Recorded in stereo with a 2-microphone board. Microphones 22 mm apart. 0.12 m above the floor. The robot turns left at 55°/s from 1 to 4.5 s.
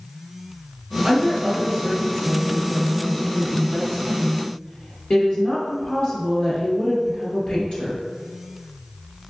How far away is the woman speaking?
About 1.9 m.